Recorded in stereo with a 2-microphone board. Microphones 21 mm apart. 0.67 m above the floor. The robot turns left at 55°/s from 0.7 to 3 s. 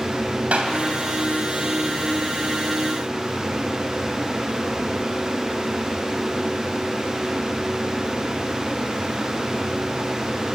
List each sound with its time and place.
0.5 s a clap: 75° right (ahead or behind), 3 m; by 0.8 s 80° right, 3 m